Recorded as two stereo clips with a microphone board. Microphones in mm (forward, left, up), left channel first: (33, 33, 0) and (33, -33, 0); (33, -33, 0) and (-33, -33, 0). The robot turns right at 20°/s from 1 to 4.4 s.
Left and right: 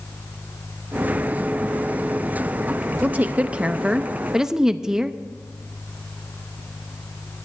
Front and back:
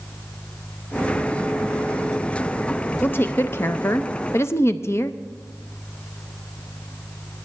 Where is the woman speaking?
40° right, 0.5 m; by 5.1 s 10° right, 0.5 m.